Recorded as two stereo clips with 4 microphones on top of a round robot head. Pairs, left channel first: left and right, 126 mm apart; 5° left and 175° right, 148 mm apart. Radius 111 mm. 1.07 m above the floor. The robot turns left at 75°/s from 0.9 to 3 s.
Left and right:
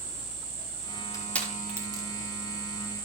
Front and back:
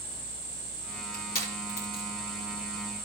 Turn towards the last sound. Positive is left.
turn(degrees=-110)